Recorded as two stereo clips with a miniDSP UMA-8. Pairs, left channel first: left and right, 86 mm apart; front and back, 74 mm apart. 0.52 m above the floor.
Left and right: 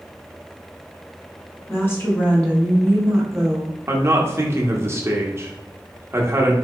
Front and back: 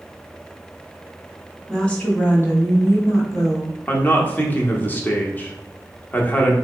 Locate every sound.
1.7 s a woman speaking: 70° left, 1.3 m; by 3.8 s 10° right, 2.0 m
3.9 s a man speaking: 50° right, 0.9 m